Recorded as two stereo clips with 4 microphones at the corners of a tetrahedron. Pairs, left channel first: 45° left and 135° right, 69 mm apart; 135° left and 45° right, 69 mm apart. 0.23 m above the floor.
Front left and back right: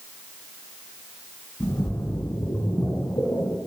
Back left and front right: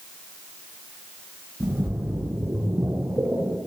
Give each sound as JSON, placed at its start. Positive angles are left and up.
{"t": 1.6, "sound": "a splash", "azimuth_deg": 15, "distance_m": 4.5}